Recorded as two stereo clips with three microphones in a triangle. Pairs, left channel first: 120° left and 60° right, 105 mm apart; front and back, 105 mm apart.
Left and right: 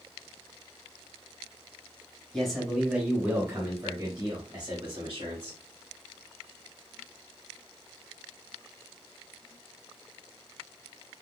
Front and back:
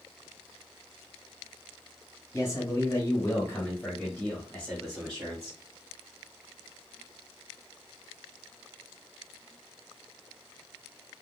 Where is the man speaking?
35° left, 1.2 m; by 5.6 s 90° right, 1.8 m.